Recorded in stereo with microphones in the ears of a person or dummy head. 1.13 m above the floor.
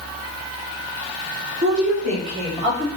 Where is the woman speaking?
40° right (ahead or behind), 1.1 m; by 2.9 s 25° right (ahead or behind), 2.5 m.